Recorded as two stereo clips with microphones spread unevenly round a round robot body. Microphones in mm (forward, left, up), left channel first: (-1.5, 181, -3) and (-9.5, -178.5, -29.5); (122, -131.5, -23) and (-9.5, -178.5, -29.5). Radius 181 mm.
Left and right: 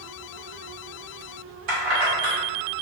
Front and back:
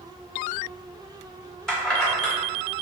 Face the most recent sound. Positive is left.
turn(degrees=-65)